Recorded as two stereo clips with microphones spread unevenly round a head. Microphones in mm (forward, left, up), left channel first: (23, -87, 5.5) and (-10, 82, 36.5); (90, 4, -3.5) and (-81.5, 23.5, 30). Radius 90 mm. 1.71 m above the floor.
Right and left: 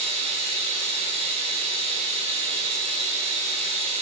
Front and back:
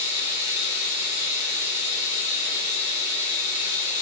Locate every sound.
0.0 s running water: 45° left, 5.5 m